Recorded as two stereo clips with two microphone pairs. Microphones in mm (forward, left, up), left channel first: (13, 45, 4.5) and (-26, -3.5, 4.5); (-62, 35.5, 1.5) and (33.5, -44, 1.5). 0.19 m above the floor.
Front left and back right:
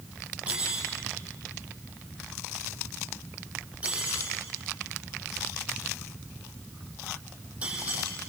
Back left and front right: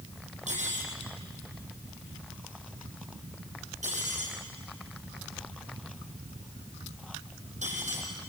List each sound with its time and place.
0.5 s cutlery clinking: 55° right, 5 m